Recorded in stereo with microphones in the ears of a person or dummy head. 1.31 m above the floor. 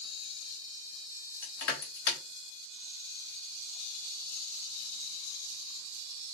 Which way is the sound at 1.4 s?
70° left (ahead or behind).